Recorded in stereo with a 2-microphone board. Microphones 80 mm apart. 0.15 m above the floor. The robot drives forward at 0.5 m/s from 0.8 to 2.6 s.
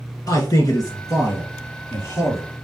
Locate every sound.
0.3 s a man speaking: 50° left (ahead or behind), 2.5 m; by 2.5 s 40° left (ahead or behind), 3 m